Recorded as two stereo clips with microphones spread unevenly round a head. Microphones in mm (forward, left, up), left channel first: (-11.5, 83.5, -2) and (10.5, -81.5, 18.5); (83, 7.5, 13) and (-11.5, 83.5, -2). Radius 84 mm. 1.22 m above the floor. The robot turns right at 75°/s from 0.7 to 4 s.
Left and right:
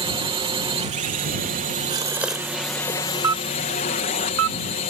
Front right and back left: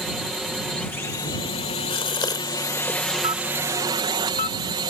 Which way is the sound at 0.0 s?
135° right.